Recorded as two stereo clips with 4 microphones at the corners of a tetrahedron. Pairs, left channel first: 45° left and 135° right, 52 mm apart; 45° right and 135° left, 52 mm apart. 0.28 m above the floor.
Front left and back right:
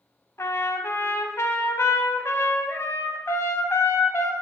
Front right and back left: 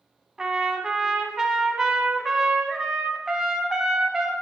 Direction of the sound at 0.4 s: 55° left.